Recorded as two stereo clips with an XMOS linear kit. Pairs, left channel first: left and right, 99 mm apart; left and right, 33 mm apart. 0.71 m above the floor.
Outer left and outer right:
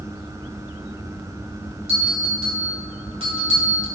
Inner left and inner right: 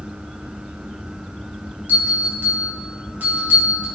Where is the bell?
60° right (ahead or behind), 3 m.